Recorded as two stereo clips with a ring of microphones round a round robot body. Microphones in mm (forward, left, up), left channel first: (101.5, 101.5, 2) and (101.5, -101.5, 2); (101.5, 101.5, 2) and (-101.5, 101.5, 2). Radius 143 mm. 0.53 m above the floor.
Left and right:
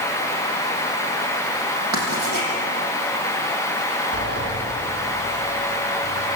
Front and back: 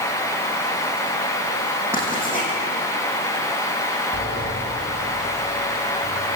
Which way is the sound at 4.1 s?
55° right.